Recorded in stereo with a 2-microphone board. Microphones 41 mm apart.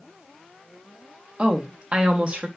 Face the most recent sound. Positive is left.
turn(degrees=-30)  # may be behind; listen again after turning